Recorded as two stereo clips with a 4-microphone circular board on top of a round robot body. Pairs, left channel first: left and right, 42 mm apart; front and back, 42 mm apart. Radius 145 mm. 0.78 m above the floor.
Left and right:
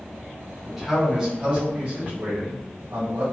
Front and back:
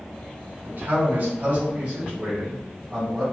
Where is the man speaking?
175° right, 1.4 m; by 3.2 s 100° right, 1.7 m.